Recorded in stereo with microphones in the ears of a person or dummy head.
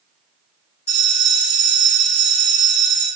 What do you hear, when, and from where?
0.9 s a bell: 50° left (ahead or behind), 1.9 m